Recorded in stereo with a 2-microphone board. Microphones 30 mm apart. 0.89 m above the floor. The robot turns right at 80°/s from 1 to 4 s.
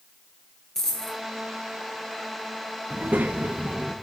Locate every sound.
0.8 s a dropped coin: 15° left (ahead or behind), 1.8 m; by 1.2 s centre (ahead or behind), 1.8 m
2.9 s a child speaking: 105° right, 0.6 m; by 4.0 s 20° right, 0.6 m